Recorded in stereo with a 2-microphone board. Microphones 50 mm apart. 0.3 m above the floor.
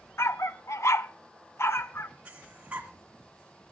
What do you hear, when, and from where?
0.2 s a dog barking: 60° left (ahead or behind), 0.6 m; by 2.1 s 55° left (ahead or behind), 1.1 m
2.2 s breathing: 25° right (ahead or behind), 1.9 m